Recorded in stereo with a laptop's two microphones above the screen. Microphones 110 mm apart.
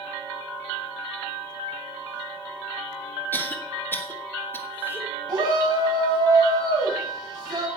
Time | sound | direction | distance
3.3 | a cough | 20° left (ahead or behind) | 1.6 m
5.3 | a shout | 40° right (ahead or behind) | 6.5 m